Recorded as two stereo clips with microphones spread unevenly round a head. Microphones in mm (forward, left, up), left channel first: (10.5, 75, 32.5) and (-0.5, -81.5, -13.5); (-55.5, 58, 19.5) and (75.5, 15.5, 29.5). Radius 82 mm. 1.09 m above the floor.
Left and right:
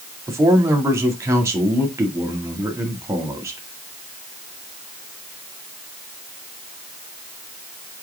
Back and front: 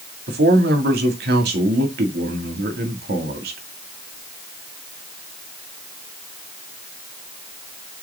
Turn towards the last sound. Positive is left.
turn(degrees=-20)